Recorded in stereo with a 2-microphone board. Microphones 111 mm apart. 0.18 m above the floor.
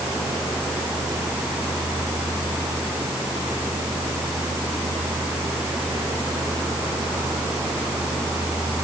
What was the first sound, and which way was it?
Only background noise.